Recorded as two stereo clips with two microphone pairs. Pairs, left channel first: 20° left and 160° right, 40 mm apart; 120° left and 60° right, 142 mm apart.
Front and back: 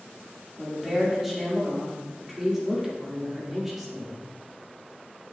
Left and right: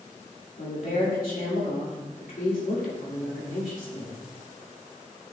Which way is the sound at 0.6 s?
115° left.